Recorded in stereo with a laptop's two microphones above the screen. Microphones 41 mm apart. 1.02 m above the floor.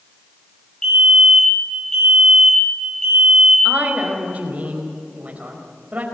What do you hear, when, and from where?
0.8 s a fire alarm: 20° left (ahead or behind), 5 m
3.6 s a woman speaking: 40° right (ahead or behind), 5 m